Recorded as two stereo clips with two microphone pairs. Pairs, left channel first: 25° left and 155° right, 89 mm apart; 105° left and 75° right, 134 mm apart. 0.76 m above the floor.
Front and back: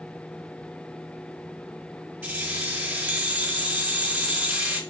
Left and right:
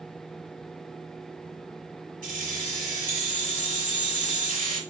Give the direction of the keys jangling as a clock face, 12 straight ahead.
3 o'clock.